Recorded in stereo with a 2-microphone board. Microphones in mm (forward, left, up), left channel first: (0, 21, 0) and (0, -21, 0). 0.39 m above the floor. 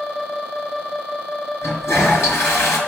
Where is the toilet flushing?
80° left, 4 m.